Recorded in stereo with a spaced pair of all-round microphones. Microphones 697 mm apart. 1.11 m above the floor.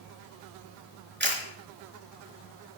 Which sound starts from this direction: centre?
A camera shutter, at 1.2 s.